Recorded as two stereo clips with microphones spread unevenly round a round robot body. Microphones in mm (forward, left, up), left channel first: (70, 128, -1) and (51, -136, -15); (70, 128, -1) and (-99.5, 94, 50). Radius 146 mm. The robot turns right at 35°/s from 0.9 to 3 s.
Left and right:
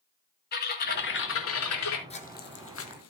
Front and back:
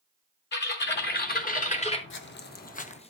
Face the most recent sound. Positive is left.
turn(degrees=75)